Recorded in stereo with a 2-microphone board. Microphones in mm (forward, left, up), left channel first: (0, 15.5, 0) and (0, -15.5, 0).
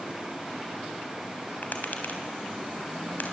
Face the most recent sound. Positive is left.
turn(degrees=60)  # may be behind; listen again after turning